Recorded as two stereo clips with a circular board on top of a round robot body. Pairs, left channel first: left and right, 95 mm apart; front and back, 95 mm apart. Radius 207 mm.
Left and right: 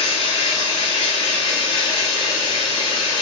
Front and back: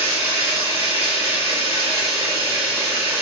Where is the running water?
115° left, 1.2 m.